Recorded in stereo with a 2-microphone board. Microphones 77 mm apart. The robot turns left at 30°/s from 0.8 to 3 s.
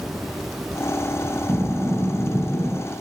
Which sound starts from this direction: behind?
Breathing, at 1.5 s.